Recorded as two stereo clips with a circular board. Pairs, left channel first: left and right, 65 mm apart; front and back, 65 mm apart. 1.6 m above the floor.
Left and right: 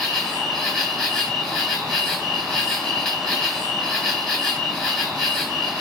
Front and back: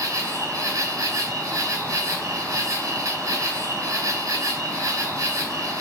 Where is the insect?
165° left, 1.2 m.